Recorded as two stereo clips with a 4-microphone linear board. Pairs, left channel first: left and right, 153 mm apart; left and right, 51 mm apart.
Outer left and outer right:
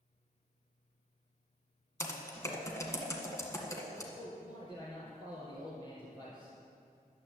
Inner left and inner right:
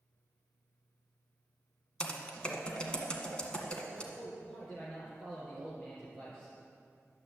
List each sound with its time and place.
2.0 s typing on a keyboard: 20° left (ahead or behind), 1.7 m
4.1 s a man speaking: 30° left (ahead or behind), 3 m